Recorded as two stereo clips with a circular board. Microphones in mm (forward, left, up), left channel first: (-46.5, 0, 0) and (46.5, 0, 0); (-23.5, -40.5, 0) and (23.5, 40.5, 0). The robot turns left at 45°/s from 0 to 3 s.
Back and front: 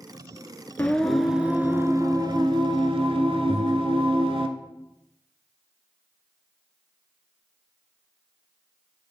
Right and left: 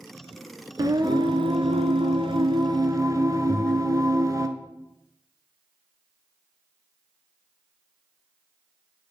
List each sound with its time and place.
0.8 s singing: 110° left, 0.6 m; by 4.5 s 10° left, 0.6 m
3.5 s breathing: 40° right, 0.9 m